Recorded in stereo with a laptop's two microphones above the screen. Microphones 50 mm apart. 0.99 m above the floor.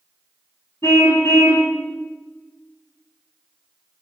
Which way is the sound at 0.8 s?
75° left (ahead or behind).